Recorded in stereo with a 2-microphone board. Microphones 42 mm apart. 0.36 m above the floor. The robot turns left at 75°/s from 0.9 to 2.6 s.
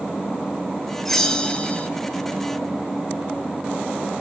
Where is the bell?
5° left (ahead or behind), 1.2 m; by 1.9 s 30° left (ahead or behind), 1.2 m.